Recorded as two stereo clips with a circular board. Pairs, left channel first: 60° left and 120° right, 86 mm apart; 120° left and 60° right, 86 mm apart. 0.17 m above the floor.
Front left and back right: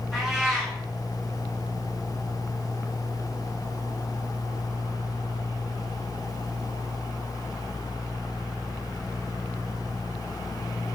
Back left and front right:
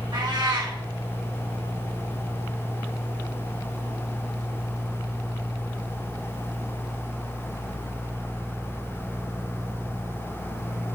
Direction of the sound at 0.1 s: 35° right.